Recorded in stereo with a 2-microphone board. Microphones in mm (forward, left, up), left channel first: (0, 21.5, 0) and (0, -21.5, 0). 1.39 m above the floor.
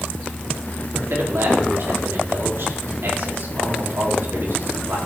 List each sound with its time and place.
0.9 s a man speaking: 65° right (ahead or behind), 4.5 m